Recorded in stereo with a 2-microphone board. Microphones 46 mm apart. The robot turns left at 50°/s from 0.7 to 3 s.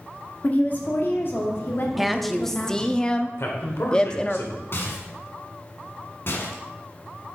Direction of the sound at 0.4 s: 130° left.